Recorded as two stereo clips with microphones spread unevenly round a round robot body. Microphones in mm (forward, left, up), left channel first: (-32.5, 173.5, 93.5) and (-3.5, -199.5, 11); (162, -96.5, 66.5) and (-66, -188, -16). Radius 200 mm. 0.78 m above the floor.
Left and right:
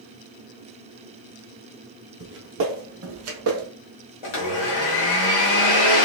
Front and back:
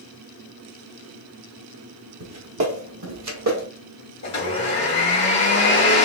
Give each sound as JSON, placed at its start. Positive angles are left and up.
{"t": 2.2, "sound": "footsteps", "azimuth_deg": -150, "distance_m": 0.9}
{"t": 4.2, "sound": "a blender", "azimuth_deg": 75, "distance_m": 1.5}